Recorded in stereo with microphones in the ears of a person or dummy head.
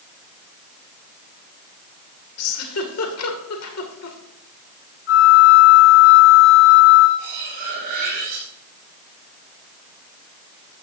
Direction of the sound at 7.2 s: 45° right (ahead or behind).